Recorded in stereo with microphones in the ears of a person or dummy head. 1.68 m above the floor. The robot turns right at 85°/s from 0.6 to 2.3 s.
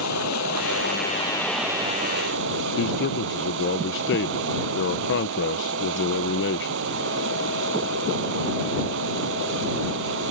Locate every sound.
0.0 s running water: 100° left; by 10.3 s 115° right
2.8 s a man speaking: 60° left (ahead or behind)